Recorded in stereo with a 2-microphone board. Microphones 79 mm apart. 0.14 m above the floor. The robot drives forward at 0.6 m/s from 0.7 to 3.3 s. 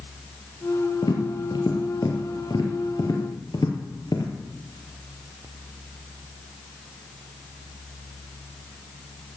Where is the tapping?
65° left (ahead or behind), 3 m; by 4.3 s 60° left (ahead or behind), 3 m.